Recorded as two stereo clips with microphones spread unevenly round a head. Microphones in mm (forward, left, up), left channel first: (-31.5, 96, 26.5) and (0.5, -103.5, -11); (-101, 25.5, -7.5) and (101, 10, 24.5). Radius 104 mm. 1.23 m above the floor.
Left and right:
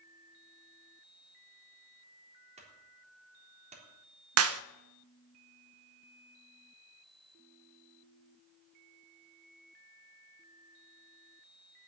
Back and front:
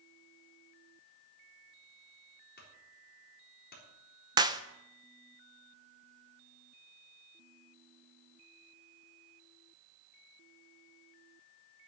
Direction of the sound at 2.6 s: 140° right.